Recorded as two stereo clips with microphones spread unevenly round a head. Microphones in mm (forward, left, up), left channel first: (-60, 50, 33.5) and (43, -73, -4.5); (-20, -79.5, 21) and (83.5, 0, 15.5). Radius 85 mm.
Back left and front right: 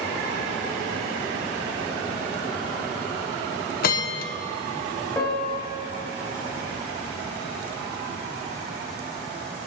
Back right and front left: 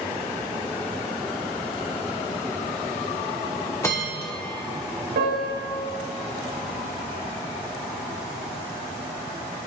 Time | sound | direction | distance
3.8 | a bell | 145° left | 1.1 m
5.2 | a piano | 50° left | 4.5 m